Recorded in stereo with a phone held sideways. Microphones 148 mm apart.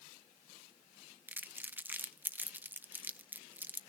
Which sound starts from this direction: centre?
Crumpling, at 1.3 s.